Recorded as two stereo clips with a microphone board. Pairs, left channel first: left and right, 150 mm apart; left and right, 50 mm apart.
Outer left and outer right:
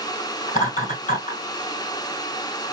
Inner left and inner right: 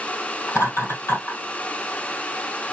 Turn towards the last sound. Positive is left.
turn(degrees=60)  # may be behind; listen again after turning